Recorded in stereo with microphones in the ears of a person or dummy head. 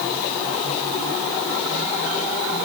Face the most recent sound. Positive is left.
No sound to turn to.